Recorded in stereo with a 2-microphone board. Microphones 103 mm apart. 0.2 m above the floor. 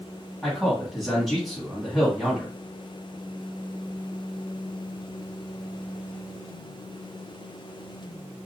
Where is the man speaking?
Centre (ahead or behind), 1.6 m.